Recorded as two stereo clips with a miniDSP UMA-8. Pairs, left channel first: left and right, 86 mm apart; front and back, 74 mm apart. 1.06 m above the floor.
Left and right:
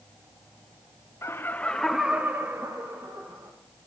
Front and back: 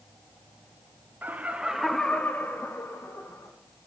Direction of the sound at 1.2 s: 130° left.